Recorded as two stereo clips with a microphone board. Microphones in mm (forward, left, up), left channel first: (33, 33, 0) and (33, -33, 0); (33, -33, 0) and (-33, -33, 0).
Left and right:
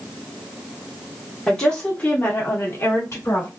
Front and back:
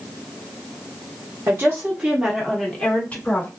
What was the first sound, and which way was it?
A woman speaking, 165° left.